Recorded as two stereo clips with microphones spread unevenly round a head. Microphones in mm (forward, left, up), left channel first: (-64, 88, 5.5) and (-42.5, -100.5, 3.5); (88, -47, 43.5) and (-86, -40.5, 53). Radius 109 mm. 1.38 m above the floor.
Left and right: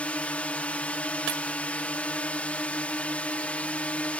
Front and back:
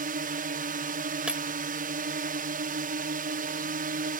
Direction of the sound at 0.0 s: 175° left.